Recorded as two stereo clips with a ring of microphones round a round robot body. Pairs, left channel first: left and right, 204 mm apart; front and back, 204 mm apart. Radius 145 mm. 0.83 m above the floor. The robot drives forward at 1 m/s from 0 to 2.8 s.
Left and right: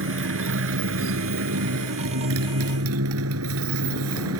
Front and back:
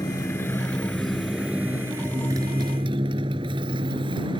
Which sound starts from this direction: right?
A motorcycle, at 0.0 s.